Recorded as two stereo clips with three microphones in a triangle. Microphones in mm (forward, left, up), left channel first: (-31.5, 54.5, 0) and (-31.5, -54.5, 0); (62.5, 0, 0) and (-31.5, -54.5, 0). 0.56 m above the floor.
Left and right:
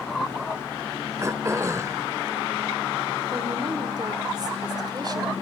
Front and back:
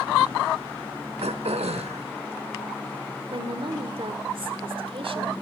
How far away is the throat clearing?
About 0.8 m.